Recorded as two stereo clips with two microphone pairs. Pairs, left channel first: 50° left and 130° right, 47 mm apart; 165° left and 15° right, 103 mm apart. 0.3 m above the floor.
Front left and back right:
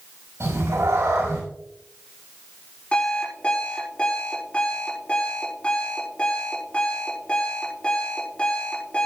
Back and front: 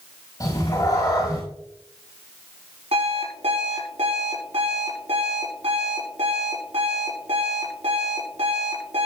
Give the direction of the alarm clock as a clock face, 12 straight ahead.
1 o'clock.